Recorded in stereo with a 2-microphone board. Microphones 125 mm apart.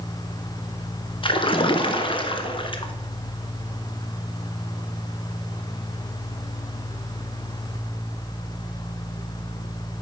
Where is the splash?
45° left (ahead or behind), 0.8 m.